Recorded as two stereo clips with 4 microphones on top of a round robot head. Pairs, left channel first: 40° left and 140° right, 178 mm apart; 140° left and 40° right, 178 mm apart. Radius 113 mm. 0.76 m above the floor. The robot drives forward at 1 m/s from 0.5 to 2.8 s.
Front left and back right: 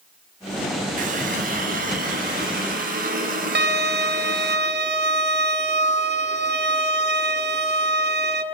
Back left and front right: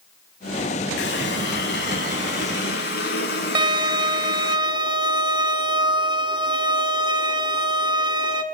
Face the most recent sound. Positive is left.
turn(degrees=-105)